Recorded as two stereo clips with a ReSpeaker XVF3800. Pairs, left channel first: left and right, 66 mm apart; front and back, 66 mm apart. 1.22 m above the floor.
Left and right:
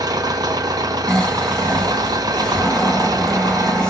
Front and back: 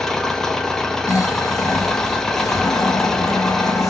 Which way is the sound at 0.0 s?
80° right.